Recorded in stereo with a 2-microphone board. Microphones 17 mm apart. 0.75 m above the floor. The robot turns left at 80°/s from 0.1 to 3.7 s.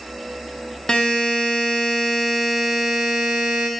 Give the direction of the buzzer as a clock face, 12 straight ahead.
8 o'clock.